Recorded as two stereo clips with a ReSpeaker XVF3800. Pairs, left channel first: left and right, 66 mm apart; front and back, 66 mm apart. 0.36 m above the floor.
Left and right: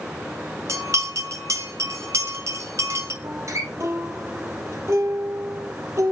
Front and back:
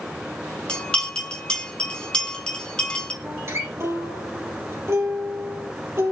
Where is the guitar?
130° right, 3.5 m.